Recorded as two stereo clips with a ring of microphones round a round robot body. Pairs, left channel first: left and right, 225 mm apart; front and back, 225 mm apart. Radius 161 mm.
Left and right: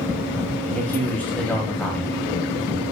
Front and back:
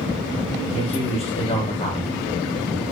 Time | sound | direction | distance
0.7 | a man speaking | 15° left | 0.9 m